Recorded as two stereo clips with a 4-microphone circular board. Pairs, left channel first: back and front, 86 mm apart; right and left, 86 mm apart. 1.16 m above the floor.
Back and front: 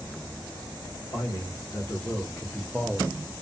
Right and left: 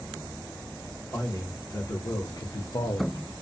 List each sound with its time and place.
1.1 s a man speaking: 145° right, 1.2 m; by 3.4 s 50° right, 0.5 m